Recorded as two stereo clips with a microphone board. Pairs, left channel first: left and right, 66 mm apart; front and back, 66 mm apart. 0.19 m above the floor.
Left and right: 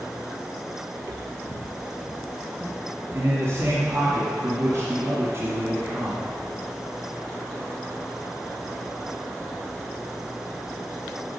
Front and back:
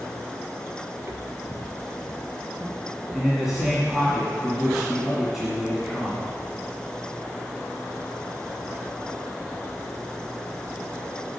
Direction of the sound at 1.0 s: 130° right.